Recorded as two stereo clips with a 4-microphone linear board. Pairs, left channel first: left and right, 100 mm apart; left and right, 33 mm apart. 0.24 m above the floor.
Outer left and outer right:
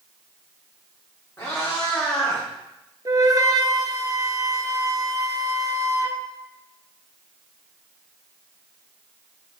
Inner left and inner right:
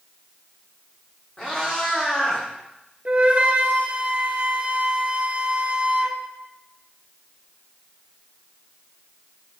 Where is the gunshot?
I don't hear a gunshot.